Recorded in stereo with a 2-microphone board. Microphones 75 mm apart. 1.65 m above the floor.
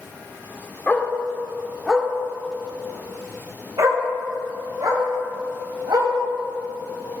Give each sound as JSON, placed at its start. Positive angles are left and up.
{"t": 0.9, "sound": "a dog barking", "side_deg": 20, "distance_m": 1.4}